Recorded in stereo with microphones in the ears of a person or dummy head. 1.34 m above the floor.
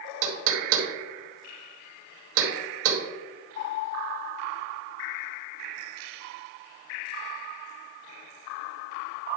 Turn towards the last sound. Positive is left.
turn(degrees=-75)  # may be behind; listen again after turning